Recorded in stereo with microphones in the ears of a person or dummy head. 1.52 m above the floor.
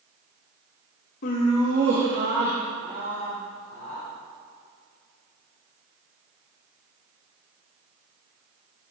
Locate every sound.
1.2 s laughter: 40° left (ahead or behind), 0.5 m; by 4.0 s 65° right (ahead or behind), 4 m